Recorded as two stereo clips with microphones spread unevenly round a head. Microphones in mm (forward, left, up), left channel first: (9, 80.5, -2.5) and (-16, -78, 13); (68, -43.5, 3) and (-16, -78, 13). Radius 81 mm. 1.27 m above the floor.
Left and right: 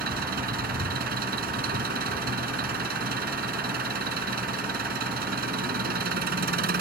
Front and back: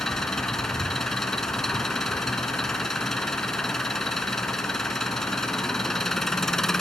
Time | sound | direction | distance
0.0 | an engine running | 65° right | ?